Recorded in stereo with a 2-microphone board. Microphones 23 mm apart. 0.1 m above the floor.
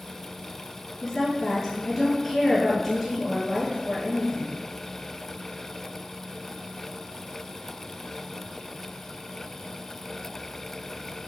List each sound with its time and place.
1.0 s a woman speaking: 5° left (ahead or behind), 1.5 m